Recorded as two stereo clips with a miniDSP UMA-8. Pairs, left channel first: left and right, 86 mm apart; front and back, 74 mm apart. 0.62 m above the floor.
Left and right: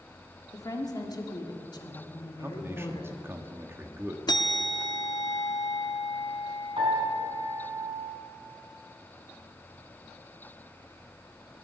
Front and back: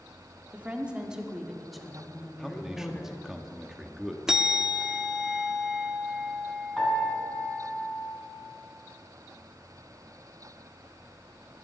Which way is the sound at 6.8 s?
80° right.